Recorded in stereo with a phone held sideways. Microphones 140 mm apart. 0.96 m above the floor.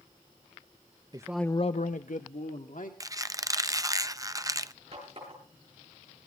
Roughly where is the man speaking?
Right.